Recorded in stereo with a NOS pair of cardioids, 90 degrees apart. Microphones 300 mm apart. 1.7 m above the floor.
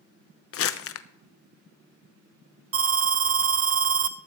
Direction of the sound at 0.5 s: 50° left.